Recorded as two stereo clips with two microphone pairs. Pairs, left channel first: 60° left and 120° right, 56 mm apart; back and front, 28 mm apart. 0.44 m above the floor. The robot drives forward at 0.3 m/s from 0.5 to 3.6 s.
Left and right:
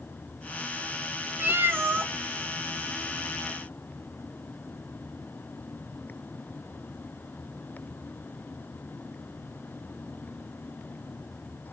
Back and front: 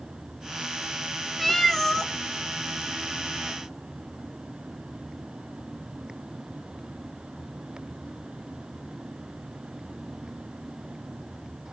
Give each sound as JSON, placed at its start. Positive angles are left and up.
{"t": 1.4, "sound": "a cat meowing", "azimuth_deg": -90, "distance_m": 0.5}